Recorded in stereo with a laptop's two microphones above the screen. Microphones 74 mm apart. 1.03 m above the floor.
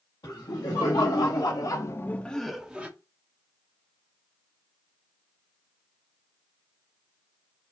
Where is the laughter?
70° left (ahead or behind), 2.0 m; by 2.9 s 20° right (ahead or behind), 1.1 m.